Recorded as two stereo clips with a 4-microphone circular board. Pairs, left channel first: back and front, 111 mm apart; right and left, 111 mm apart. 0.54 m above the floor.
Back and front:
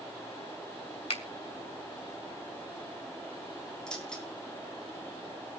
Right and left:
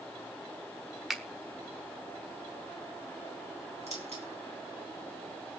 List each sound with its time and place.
1.1 s a finger snap: straight behind, 1.4 m
3.9 s keys jangling: 95° left, 3.5 m